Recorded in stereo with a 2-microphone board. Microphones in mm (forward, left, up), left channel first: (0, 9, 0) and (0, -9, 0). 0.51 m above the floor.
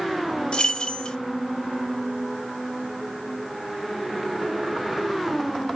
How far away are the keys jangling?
About 1.4 m.